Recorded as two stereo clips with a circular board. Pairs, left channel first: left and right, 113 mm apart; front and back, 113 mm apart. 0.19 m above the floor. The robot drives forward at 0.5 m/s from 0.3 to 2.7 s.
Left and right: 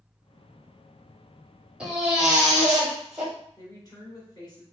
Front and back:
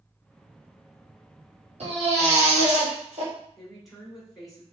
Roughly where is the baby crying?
Behind.